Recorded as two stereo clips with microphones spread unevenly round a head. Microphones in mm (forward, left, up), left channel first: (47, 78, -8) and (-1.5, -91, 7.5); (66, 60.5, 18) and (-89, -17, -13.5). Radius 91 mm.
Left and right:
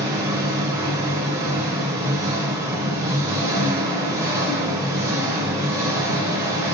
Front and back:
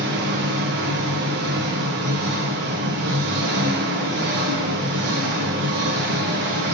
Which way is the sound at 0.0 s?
175° right.